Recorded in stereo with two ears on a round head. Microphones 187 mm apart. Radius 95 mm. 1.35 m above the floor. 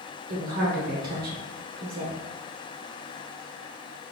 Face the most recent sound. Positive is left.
turn(degrees=-45)  # may be behind; listen again after turning